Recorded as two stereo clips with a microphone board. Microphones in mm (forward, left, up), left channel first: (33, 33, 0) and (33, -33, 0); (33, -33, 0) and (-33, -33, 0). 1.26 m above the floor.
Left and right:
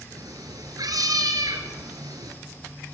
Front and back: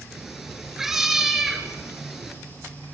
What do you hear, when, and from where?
0.1 s a cat meowing: 95° right, 3.5 m